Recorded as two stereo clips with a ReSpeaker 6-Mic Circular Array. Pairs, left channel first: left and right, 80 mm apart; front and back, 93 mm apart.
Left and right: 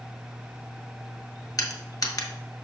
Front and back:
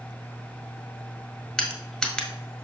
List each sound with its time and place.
1.6 s crushing: 80° left, 1.4 m